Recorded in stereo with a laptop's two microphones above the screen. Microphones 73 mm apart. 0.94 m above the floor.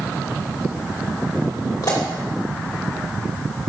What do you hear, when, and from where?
1.8 s a pop: 50° left (ahead or behind), 2.5 m